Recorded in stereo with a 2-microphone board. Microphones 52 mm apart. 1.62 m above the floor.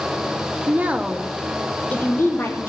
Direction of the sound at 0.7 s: 35° right (ahead or behind).